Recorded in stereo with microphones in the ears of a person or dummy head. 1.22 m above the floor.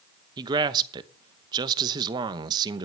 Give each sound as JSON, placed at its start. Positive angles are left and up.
{"t": 0.4, "sound": "a man speaking", "side_deg": -25, "distance_m": 0.9}